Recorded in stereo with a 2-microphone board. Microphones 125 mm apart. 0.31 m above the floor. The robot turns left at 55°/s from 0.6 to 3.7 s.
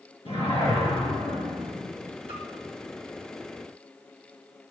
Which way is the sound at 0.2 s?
50° left.